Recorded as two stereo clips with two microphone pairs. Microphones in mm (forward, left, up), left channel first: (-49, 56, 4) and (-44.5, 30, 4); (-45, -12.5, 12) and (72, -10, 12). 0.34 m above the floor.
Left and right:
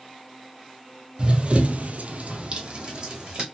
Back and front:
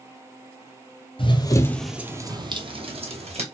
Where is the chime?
No chime in this recording.